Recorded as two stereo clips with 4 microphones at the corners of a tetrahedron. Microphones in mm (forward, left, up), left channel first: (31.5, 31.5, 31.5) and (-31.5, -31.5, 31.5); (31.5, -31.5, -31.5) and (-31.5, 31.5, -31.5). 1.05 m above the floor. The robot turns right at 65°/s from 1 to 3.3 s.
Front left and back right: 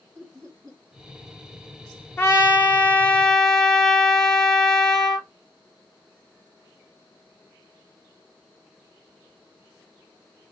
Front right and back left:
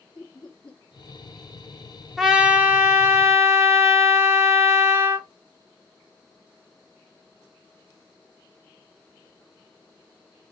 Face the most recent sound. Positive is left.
turn(degrees=120)